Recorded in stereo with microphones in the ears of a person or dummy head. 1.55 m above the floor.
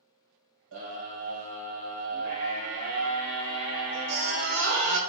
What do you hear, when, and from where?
0.7 s a scream: 80° right, 1.0 m